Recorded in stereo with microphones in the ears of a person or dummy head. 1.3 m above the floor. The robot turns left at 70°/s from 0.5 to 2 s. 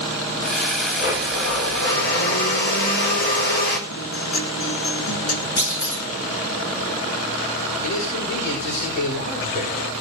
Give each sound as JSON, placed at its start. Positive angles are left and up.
{"t": 1.0, "sound": "a blender", "azimuth_deg": 130, "distance_m": 4.0}
{"t": 3.9, "sound": "a guitar", "side_deg": 85, "distance_m": 3.5}
{"t": 5.6, "sound": "a clunk", "side_deg": 65, "distance_m": 9.5}
{"t": 7.8, "sound": "a man speaking", "side_deg": 50, "distance_m": 6.5}